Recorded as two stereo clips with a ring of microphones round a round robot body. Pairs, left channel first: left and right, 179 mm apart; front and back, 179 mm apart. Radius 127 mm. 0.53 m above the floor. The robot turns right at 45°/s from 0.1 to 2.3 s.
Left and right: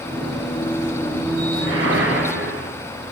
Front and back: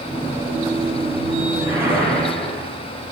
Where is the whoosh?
115° right, 4.5 m; by 2.7 s 80° right, 4.5 m.